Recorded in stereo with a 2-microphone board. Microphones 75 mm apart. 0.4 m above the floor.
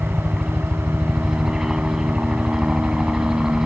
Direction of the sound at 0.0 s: 5° right (ahead or behind).